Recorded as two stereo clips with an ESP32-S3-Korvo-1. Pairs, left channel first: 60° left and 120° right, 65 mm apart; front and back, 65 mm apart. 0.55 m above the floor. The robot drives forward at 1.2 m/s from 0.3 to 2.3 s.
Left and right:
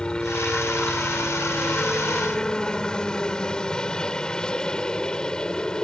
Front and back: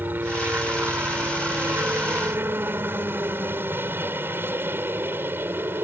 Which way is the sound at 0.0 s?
130° left.